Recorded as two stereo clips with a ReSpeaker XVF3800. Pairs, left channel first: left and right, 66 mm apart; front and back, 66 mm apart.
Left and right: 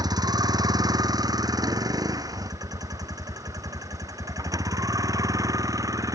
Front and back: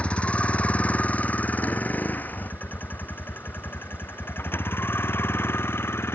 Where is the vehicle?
75° right; by 6.2 s 55° right.